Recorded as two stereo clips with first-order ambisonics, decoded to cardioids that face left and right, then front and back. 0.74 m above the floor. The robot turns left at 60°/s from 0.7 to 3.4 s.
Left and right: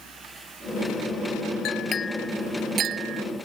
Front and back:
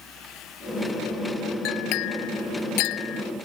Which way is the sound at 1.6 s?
40° left.